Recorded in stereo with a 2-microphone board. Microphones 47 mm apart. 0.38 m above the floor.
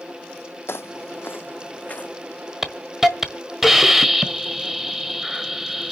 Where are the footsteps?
60° left (ahead or behind), 0.8 m; by 2.5 s 20° left (ahead or behind), 2 m.